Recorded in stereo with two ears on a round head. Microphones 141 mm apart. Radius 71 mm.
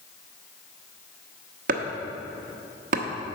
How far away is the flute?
No flute in this recording.